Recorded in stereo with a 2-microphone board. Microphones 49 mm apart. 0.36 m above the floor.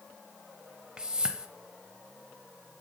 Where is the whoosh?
15° right (ahead or behind), 0.5 m.